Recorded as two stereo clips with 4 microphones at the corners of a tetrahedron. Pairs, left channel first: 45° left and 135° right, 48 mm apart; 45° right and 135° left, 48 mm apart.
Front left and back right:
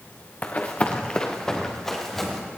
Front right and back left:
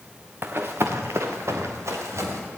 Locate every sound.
0.4 s running footsteps: 95° left, 1.6 m; by 2.4 s 130° left, 3 m